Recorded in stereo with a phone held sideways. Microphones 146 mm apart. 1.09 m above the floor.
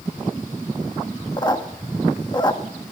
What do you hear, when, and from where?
1.4 s a squeak: 30° left (ahead or behind), 1.1 m